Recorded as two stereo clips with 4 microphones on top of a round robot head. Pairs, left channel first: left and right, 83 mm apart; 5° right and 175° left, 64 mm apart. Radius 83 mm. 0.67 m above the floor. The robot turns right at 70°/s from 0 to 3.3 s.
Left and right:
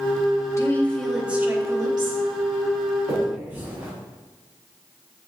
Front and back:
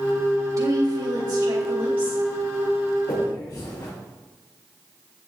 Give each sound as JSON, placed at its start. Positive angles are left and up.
{"t": 0.6, "sound": "a woman speaking", "azimuth_deg": 145, "distance_m": 3.0}
{"t": 3.1, "sound": "a finger snap", "azimuth_deg": -35, "distance_m": 4.5}